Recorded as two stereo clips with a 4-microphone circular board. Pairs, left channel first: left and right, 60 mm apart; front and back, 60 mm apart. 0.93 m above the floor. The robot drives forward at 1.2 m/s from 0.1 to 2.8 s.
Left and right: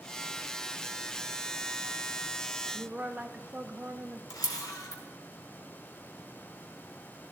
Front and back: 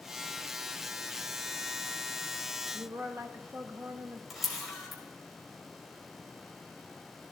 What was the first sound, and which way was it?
A woman speaking, 155° right.